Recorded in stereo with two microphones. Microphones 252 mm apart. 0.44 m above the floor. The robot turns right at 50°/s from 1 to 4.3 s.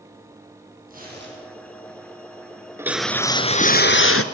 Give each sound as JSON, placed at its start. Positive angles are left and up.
{"t": 0.9, "sound": "tearing paper", "side_deg": -35, "distance_m": 8.0}
{"t": 2.8, "sound": "a whoosh", "azimuth_deg": -10, "distance_m": 1.2}